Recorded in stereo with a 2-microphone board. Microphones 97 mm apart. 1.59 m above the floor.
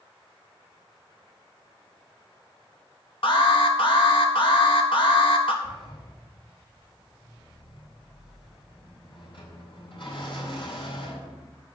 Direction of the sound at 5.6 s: 60° left (ahead or behind).